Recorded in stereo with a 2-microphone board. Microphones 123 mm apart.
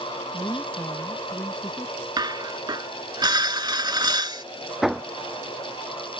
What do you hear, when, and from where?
0.3 s a woman speaking: 15° left (ahead or behind); by 2.1 s 5° left (ahead or behind)
2.2 s dishes clattering: 35° right (ahead or behind)
4.8 s hammering: centre (ahead or behind)